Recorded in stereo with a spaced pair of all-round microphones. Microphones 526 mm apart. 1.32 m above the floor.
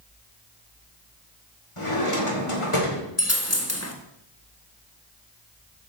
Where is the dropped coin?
30° left (ahead or behind), 1.0 m.